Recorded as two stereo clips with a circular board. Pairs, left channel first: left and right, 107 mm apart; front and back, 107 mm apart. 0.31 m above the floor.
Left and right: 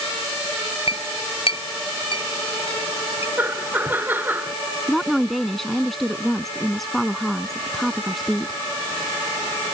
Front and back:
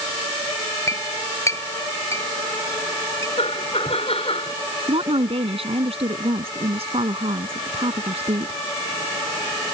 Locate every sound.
0.9 s a clink: 60° left
3.4 s laughter: 20° right
4.9 s a woman speaking: straight behind